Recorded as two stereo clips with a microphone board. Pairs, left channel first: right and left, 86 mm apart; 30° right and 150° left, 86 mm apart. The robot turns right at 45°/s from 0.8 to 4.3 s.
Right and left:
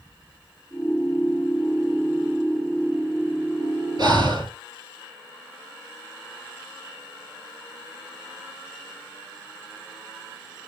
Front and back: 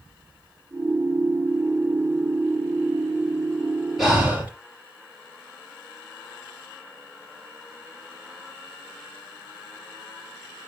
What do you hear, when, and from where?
4.0 s breathing: 65° left, 3.5 m; by 4.5 s 80° left, 3.5 m